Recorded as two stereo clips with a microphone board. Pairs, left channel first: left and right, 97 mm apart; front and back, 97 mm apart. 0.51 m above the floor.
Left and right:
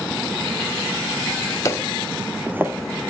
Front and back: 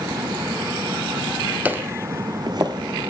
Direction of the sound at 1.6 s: 115° left.